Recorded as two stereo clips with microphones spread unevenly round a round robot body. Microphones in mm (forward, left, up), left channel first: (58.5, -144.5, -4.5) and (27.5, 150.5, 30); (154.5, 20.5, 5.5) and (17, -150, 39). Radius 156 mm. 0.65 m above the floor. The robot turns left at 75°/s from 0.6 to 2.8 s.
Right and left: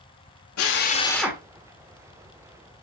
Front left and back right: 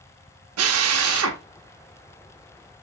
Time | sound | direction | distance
0.6 | a drill | 125° right | 1.2 m